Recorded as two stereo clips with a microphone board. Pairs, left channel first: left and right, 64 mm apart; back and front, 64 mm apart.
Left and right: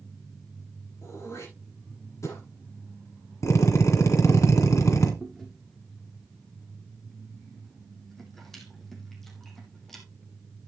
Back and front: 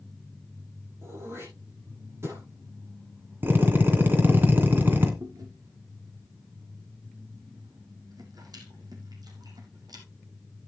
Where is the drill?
60° left, 2.5 m.